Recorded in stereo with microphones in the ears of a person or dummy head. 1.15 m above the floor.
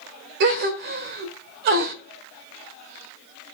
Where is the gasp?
60° right (ahead or behind), 1.4 m.